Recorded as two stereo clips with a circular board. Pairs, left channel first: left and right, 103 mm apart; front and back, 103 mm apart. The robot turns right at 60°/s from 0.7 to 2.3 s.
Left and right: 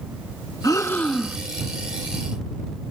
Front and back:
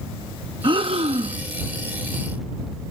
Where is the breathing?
145° left; by 1.4 s 175° right.